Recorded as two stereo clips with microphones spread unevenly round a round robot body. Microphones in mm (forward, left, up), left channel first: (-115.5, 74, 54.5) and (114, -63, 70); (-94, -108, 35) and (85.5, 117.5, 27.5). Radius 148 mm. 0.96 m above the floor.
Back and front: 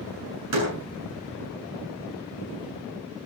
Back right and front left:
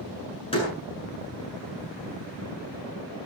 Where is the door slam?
55° right, 7.5 m.